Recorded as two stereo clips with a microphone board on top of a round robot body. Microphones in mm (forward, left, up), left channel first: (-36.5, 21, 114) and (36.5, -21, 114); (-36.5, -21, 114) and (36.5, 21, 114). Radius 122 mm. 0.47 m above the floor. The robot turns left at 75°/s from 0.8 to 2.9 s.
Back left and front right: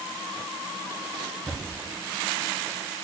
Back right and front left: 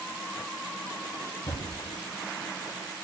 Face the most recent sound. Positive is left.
turn(degrees=140)